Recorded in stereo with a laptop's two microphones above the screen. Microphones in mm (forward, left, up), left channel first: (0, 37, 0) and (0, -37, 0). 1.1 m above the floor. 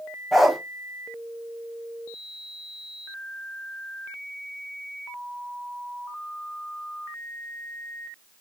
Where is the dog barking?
Centre (ahead or behind), 1.3 m.